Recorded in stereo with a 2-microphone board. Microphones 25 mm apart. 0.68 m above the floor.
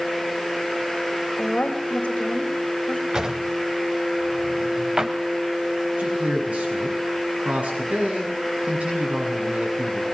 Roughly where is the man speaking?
Right.